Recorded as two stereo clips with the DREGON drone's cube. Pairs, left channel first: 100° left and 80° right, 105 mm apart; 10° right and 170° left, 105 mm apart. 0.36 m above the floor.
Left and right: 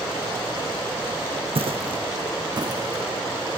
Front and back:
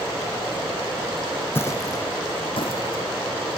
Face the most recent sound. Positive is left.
turn(degrees=-15)